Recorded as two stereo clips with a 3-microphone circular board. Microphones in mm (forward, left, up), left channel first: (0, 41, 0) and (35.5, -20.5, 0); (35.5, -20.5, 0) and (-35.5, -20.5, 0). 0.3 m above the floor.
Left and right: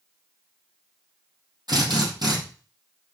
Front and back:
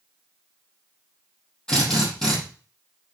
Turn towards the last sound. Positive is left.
turn(degrees=-80)